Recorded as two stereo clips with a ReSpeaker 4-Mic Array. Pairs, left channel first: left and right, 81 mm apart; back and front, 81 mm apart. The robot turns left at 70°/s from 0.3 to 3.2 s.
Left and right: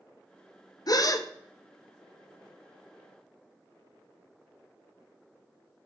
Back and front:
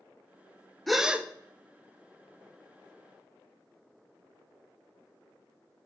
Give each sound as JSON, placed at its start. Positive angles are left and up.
{"t": 0.9, "sound": "a gasp", "azimuth_deg": 95, "distance_m": 0.6}